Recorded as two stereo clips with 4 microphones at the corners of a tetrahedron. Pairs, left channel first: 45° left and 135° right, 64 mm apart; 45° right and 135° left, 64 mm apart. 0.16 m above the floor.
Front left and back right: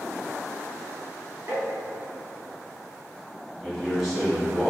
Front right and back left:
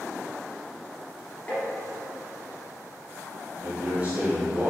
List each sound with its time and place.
1.5 s tapping: 105° right, 1.6 m
3.6 s a man speaking: 145° left, 1.1 m